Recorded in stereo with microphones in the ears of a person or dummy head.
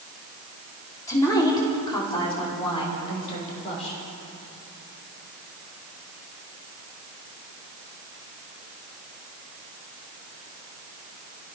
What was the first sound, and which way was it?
A woman speaking, 20° left (ahead or behind).